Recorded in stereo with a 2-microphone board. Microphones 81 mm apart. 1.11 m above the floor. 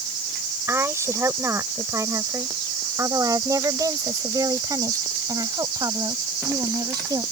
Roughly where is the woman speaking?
Right.